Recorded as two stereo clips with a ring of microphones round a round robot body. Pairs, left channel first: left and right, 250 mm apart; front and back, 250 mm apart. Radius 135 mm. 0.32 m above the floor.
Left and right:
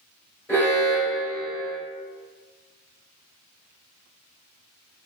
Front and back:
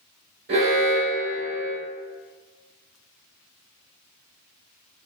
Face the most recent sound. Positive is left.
turn(degrees=170)